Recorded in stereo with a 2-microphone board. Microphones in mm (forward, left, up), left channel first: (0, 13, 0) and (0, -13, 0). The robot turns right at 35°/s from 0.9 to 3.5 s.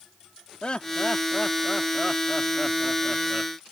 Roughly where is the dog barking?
No dog barking in this recording.